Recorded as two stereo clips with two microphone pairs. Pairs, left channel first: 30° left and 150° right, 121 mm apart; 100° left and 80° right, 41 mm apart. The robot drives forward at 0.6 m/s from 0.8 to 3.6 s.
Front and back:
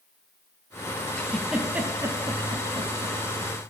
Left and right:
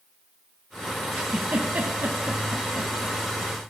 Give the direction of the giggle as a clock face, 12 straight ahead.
2 o'clock.